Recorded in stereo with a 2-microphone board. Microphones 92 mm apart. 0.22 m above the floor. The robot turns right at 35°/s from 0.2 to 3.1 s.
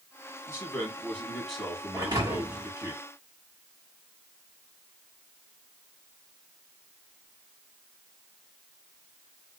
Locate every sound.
0.5 s a man speaking: 140° left, 1.5 m; by 2.9 s 135° right, 1.5 m
1.9 s a thud: 35° right (ahead or behind), 1.6 m; by 2.7 s 65° right (ahead or behind), 1.6 m